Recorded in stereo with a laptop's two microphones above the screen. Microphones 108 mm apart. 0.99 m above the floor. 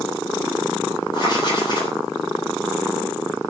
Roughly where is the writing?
Left.